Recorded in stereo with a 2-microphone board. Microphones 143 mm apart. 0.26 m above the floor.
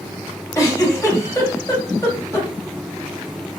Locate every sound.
0.6 s a giggle: 25° left (ahead or behind), 1.6 m